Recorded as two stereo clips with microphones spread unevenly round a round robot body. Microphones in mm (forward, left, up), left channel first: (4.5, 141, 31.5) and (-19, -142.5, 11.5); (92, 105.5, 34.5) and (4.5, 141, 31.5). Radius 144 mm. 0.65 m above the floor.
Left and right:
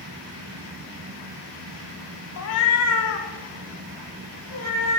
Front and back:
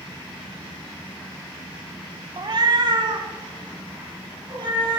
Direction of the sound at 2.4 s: 115° left.